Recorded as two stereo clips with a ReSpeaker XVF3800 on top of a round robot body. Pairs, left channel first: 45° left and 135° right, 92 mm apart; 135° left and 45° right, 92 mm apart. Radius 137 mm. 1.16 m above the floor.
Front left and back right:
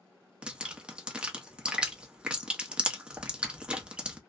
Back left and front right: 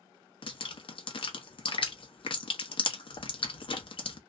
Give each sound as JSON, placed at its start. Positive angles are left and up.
{"t": 0.4, "sound": "dripping", "azimuth_deg": 145, "distance_m": 0.8}